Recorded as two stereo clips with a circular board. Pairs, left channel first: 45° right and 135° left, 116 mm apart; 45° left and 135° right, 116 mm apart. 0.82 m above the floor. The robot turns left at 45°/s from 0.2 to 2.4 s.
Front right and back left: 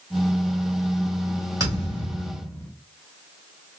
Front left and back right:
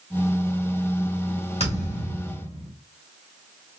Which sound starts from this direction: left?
A thud, at 1.6 s.